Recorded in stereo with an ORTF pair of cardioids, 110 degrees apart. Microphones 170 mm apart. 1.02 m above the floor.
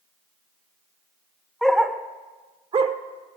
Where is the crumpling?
I don't hear crumpling.